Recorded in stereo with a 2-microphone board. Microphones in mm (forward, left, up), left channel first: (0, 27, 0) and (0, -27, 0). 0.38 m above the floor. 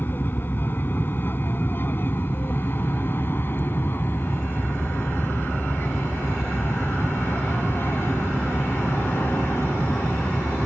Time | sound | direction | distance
0.0 | an aircraft | 40° left (ahead or behind) | ?